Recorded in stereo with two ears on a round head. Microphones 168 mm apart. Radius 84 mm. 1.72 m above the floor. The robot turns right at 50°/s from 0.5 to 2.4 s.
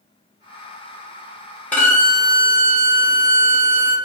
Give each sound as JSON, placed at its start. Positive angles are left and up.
{"t": 1.7, "sound": "a violin", "side_deg": 10, "distance_m": 1.0}